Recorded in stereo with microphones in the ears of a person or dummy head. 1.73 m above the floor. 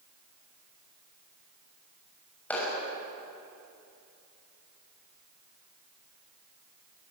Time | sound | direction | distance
2.5 | a clap | 15° left (ahead or behind) | 6.5 m